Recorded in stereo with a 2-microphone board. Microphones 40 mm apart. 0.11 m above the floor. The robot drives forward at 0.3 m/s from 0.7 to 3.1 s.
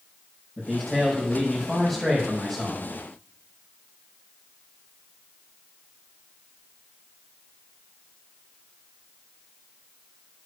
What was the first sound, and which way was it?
A man speaking, 10° left (ahead or behind).